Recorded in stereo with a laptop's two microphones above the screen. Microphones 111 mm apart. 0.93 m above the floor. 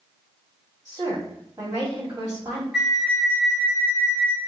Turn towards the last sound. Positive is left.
turn(degrees=-5)  # may be behind; listen again after turning